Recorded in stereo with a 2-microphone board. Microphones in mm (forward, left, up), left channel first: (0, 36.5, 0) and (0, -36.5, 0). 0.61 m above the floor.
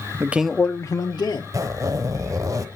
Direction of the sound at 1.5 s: 45° right (ahead or behind).